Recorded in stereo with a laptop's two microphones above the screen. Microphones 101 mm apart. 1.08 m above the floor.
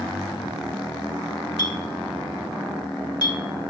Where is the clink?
45° left (ahead or behind), 1.5 m.